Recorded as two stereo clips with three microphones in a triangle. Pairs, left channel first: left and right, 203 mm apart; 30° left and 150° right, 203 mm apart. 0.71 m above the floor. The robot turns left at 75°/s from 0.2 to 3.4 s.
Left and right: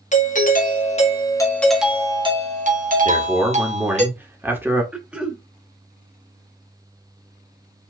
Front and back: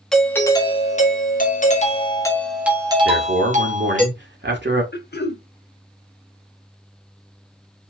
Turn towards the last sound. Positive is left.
turn(degrees=-5)